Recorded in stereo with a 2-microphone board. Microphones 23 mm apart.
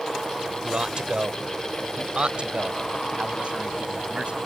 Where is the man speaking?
40° right (ahead or behind); by 4.4 s 55° right (ahead or behind).